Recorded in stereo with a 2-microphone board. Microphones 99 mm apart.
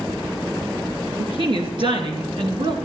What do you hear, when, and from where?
1.2 s a woman speaking: 60° right (ahead or behind), 4 m; by 2.8 s 50° right (ahead or behind), 2.5 m